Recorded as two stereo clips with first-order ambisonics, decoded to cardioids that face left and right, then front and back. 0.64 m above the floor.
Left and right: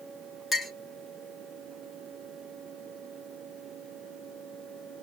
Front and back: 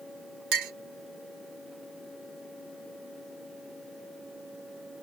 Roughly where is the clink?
Behind.